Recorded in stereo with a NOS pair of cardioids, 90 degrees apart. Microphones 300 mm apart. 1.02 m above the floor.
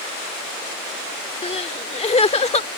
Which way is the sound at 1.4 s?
20° left.